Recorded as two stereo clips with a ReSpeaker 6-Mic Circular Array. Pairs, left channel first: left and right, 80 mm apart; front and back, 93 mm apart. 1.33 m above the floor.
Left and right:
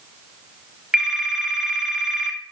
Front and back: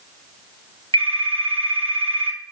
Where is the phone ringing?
170° right, 2.5 m.